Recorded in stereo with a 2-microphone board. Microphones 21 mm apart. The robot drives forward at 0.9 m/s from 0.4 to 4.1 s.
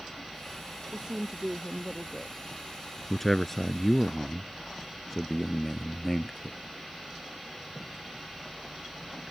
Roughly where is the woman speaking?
Right.